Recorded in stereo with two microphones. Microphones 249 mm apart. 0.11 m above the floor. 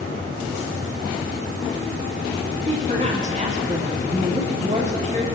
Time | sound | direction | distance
2.7 | a woman speaking | 30° right (ahead or behind) | 5 m